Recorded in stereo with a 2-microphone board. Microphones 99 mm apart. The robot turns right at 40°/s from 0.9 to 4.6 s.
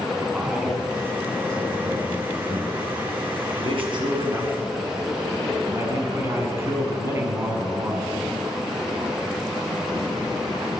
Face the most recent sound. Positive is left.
turn(degrees=-25)